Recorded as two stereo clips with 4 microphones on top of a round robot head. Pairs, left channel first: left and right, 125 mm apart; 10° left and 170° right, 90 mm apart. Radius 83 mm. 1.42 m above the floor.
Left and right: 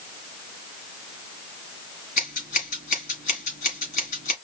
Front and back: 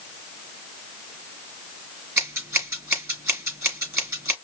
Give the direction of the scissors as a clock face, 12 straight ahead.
8 o'clock.